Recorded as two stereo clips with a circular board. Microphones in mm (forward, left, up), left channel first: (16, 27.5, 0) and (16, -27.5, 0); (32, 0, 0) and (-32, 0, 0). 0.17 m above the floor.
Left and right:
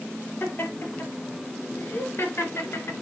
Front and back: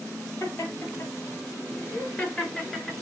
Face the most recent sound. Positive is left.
turn(degrees=85)